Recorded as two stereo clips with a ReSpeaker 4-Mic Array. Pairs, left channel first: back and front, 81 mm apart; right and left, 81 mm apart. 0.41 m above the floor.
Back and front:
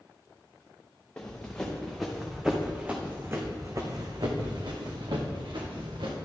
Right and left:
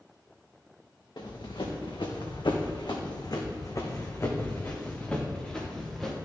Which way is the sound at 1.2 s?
105° right.